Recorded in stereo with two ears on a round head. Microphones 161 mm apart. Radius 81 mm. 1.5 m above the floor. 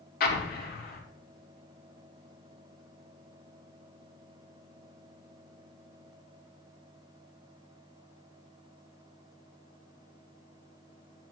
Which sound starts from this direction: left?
An explosion, at 0.2 s.